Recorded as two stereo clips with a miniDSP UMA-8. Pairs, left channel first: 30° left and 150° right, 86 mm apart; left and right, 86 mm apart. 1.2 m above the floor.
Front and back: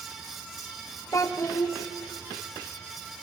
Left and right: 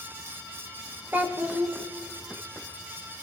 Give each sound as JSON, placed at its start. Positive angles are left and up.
{"t": 1.1, "sound": "a child speaking", "azimuth_deg": -20, "distance_m": 0.7}